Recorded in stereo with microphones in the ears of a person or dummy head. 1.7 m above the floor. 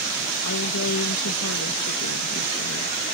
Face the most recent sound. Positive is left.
turn(degrees=70)  # may be behind; listen again after turning